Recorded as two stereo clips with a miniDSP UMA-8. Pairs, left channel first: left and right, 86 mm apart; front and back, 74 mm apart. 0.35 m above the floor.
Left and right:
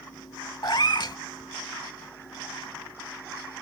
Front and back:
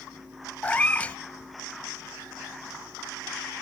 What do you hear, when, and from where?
0.6 s a cat meowing: 65° left